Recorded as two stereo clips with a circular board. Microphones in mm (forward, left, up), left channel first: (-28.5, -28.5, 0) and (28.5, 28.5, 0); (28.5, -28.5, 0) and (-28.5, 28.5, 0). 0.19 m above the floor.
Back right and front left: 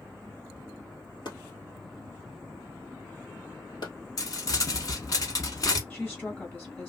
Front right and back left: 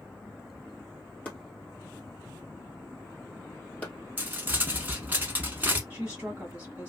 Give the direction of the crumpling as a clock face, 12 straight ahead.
5 o'clock.